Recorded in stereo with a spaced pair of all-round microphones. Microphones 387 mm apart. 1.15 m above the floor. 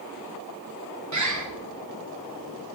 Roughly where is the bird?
Right.